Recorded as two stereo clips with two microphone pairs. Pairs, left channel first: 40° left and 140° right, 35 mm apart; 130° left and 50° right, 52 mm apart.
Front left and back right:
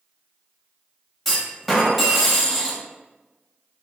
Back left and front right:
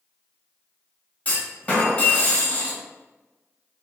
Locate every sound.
1.2 s a clunk: 120° left, 1.0 m